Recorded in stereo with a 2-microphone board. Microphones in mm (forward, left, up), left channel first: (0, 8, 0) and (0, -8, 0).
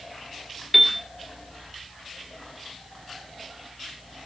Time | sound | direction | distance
0.7 | a piano | 10° right (ahead or behind) | 3 m